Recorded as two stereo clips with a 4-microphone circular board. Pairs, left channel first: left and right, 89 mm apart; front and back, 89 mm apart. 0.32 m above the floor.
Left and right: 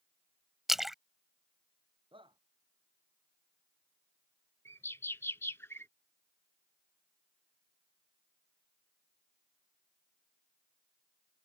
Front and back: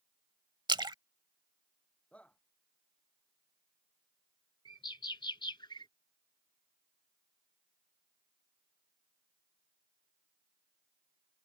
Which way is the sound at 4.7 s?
30° left.